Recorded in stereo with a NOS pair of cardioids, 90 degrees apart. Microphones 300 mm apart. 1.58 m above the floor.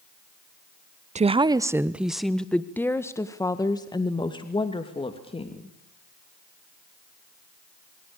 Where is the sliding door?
I don't hear a sliding door.